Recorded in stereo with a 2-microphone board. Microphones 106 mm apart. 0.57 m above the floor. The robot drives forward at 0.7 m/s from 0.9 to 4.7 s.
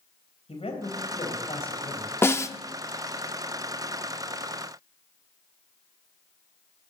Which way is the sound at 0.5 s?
75° left (ahead or behind).